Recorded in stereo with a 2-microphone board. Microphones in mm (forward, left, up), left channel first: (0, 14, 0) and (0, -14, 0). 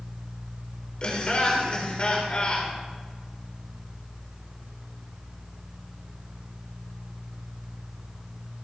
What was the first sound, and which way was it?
Laughter, 40° left (ahead or behind).